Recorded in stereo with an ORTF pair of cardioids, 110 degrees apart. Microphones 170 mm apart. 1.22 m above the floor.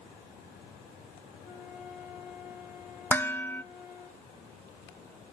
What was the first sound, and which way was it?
A flute, 60° left.